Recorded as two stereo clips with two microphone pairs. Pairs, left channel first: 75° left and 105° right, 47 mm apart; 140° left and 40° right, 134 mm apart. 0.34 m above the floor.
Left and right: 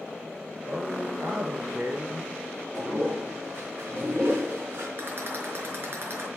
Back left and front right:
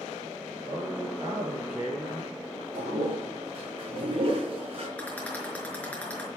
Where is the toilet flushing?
85° right, 4 m.